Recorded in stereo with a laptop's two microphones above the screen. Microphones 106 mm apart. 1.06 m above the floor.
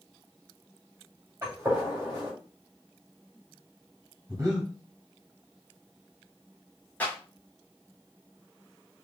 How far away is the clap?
About 2.5 m.